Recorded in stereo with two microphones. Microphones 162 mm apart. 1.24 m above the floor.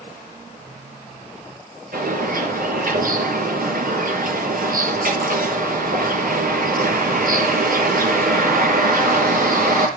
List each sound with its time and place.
1.9 s a bird: 60° right (ahead or behind), 5 m